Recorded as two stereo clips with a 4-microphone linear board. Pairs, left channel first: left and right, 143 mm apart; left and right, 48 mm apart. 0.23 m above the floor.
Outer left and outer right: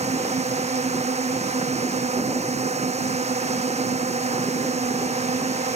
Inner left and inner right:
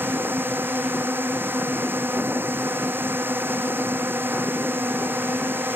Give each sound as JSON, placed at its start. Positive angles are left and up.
{"t": 0.0, "sound": "a drone", "side_deg": -50}